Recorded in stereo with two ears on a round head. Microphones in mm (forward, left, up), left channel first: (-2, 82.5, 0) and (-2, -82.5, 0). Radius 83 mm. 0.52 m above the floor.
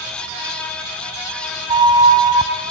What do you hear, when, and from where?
1.7 s a flute: 25° right (ahead or behind), 1.7 m